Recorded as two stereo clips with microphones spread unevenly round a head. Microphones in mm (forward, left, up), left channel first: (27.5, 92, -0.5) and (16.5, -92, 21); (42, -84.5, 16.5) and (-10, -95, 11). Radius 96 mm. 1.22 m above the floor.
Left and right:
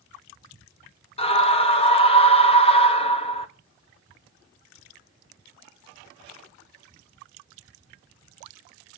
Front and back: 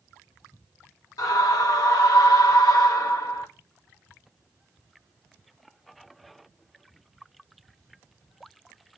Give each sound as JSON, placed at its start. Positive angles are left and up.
{"t": 1.2, "sound": "a scream", "azimuth_deg": 25, "distance_m": 1.5}